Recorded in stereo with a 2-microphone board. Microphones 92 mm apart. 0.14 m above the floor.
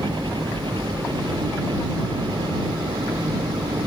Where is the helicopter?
65° right (ahead or behind).